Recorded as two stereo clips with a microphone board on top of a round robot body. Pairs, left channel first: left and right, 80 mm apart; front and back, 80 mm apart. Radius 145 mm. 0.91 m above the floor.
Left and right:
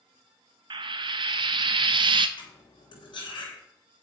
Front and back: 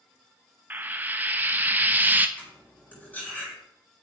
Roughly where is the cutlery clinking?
Left.